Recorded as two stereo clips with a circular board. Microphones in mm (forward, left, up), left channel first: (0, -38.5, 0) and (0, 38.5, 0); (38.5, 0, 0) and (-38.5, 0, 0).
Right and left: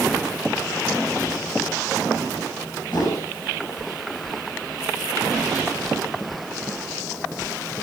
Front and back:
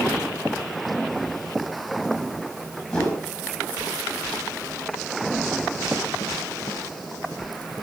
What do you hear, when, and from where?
2.9 s a whoosh: 80° right, 4 m